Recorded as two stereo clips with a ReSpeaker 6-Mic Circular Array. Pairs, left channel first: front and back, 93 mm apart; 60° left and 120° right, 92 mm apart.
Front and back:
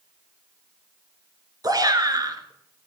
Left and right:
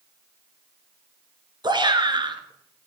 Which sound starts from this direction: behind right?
A shout, at 1.6 s.